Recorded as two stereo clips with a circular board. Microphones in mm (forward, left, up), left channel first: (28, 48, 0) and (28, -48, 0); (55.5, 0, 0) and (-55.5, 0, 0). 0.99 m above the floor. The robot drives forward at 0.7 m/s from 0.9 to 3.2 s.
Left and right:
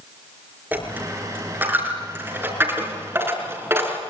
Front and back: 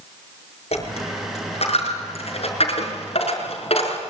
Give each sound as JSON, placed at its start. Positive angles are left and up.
{"t": 0.7, "sound": "a dropped coin", "azimuth_deg": -20, "distance_m": 6.5}